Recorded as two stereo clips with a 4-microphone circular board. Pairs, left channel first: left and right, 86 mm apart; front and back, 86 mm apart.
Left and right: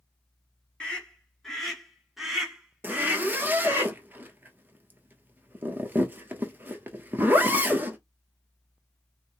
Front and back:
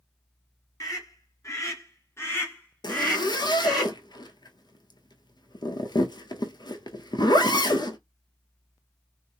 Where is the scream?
15° left, 2 m; by 3.8 s 80° right, 1.6 m.